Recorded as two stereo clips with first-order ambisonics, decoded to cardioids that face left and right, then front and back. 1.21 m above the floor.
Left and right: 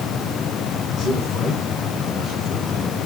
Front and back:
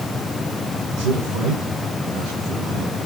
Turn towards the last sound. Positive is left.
turn(degrees=155)